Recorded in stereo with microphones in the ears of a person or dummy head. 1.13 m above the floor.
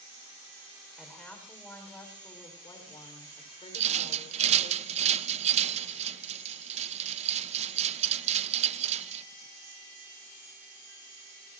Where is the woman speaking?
Centre (ahead or behind), 4.5 m; by 4.7 s 40° left (ahead or behind), 4.5 m.